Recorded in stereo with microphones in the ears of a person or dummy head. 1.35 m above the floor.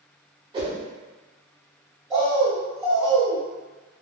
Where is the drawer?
I don't hear a drawer.